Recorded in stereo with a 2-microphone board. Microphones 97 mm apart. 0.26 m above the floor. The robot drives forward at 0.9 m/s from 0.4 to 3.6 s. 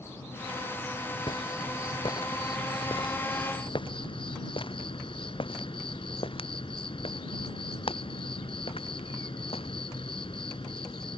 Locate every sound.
0.0 s an insect: 25° left (ahead or behind); by 11.2 s 65° left (ahead or behind)
1.3 s footsteps: 60° left (ahead or behind); by 9.7 s 75° left (ahead or behind)